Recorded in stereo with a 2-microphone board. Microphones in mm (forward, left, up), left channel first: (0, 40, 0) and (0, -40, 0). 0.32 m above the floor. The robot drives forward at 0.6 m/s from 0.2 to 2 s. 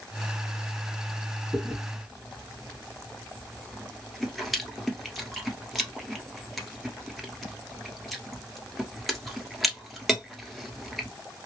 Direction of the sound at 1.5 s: Centre (ahead or behind).